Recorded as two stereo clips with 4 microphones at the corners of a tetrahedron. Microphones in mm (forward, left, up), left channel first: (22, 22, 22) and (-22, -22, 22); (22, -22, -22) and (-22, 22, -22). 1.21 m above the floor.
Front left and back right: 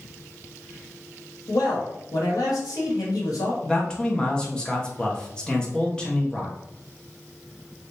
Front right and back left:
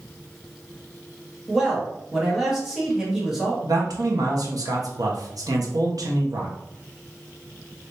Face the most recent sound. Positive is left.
turn(degrees=120)